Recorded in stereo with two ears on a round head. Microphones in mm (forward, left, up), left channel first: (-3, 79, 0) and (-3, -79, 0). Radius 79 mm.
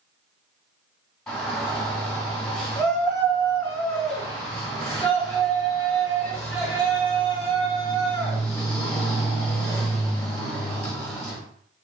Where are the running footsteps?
No running footsteps in this recording.